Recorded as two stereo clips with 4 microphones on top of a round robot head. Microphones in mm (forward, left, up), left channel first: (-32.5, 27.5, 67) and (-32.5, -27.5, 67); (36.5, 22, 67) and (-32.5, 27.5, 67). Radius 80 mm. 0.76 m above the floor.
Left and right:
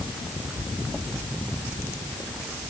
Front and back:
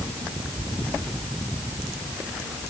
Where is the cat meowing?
I don't hear a cat meowing.